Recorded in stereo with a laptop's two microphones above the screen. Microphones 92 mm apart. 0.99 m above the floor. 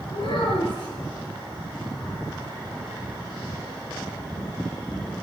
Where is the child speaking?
80° left, 10 m.